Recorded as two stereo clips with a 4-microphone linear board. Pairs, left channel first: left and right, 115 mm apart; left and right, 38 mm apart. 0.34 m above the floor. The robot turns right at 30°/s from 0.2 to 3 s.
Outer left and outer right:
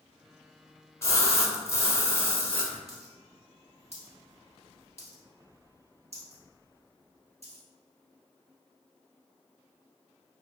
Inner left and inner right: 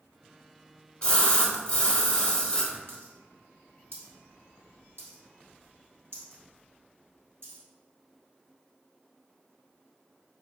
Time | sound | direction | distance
1.0 | a splash | 25° left (ahead or behind) | 0.7 m
2.9 | a dropped coin | 70° right (ahead or behind) | 1.4 m